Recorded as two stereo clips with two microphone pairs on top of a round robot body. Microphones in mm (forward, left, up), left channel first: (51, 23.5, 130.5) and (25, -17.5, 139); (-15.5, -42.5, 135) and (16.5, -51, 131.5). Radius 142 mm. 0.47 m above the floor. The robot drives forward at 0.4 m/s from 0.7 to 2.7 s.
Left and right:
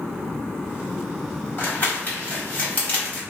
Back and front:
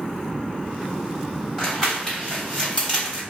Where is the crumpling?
90° left, 1.8 m; by 3.2 s 110° left, 1.9 m.